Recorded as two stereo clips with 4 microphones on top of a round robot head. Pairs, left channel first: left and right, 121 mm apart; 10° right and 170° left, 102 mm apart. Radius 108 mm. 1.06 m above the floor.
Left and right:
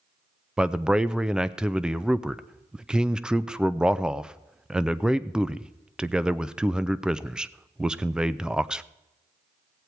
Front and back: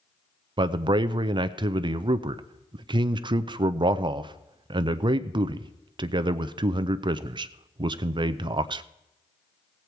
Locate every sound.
0.6 s a man speaking: 175° right, 0.5 m